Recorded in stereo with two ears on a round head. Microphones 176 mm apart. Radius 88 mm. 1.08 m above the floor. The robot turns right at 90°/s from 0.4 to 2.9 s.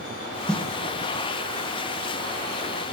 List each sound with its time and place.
0.5 s a snare drum: centre (ahead or behind), 0.9 m; by 0.7 s 15° left (ahead or behind), 0.9 m